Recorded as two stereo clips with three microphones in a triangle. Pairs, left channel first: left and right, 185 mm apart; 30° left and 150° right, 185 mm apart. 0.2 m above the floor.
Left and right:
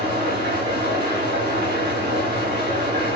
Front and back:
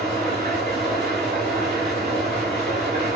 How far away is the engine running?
About 7 m.